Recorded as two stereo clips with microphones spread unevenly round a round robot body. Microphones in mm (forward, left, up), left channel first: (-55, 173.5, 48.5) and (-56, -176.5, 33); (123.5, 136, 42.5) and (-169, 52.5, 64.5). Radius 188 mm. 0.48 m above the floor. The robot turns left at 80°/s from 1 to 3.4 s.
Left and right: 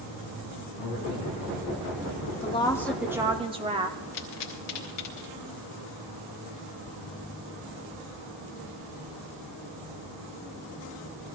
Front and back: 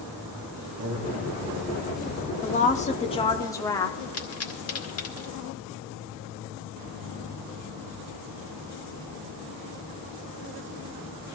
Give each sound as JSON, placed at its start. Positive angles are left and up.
{"t": 0.8, "sound": "a man speaking", "azimuth_deg": 125, "distance_m": 4.5}
{"t": 2.4, "sound": "a woman speaking", "azimuth_deg": 35, "distance_m": 0.8}
{"t": 4.1, "sound": "a pop", "azimuth_deg": 45, "distance_m": 2.0}